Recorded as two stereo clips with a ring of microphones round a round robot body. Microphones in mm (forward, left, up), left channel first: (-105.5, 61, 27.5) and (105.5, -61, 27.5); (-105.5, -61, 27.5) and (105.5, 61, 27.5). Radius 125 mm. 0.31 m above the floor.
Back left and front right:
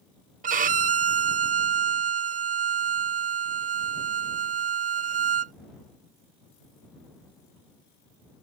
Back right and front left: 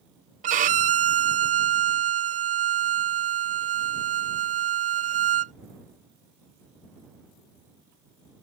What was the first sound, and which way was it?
A violin, straight ahead.